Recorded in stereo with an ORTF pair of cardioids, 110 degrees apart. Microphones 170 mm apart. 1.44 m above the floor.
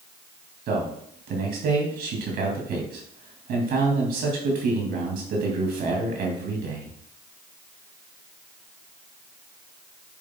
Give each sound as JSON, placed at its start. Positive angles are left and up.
{"t": 0.7, "sound": "a man speaking", "azimuth_deg": -65, "distance_m": 2.5}